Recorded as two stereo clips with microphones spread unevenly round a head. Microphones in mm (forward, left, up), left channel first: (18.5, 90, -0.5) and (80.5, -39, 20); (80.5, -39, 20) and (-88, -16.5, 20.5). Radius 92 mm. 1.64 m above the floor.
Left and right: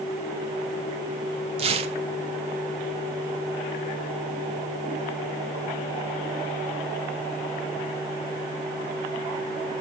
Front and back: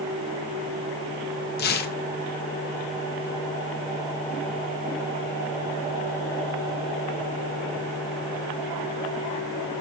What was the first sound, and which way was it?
Tearing paper, 30° right.